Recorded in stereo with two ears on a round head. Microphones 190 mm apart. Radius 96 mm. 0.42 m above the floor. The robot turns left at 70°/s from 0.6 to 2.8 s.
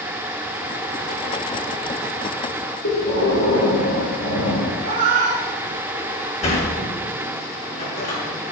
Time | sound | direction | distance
2.8 | breathing | 60° left (ahead or behind) | 6 m
4.8 | a cat meowing | 85° right | 3 m
6.4 | a sliding door | 35° left (ahead or behind) | 5.5 m